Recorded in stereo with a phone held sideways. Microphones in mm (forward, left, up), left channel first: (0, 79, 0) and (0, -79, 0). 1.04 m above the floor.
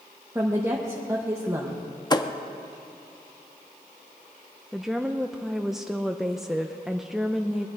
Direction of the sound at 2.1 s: 25° left (ahead or behind).